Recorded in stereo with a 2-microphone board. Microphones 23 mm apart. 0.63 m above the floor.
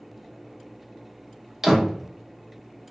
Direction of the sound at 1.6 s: 20° right (ahead or behind).